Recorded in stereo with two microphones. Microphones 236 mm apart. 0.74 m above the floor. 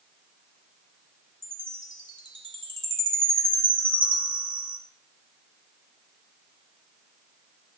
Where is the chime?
20° right (ahead or behind), 1.9 m.